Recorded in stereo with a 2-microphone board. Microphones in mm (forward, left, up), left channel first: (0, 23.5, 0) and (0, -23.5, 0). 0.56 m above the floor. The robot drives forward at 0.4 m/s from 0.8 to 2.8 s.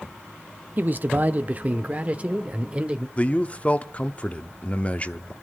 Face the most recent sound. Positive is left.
turn(degrees=30)  # may be behind; listen again after turning